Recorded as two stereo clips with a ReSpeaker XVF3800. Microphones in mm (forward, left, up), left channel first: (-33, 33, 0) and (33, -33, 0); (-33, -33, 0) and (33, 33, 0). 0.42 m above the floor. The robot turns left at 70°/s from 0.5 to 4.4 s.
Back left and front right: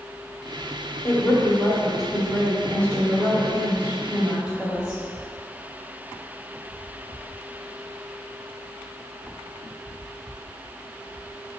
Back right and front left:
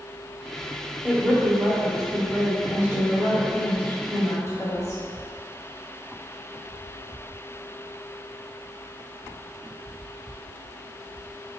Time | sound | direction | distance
1.0 | a woman speaking | 115° left | 1.4 m